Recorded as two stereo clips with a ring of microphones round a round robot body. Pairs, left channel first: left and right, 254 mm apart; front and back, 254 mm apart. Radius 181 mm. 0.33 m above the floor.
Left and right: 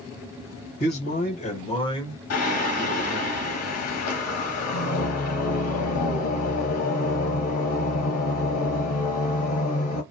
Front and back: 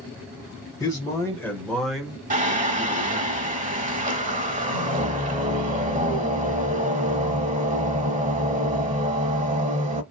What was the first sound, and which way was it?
A man speaking, 70° left.